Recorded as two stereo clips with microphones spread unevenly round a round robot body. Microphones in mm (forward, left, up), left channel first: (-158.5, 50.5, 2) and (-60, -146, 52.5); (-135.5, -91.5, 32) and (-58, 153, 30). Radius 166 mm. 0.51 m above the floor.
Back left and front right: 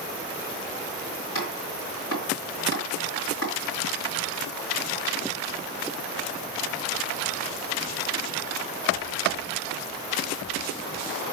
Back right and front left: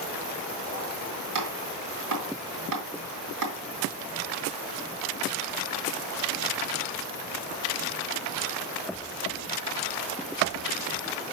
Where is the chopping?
70° left, 3 m.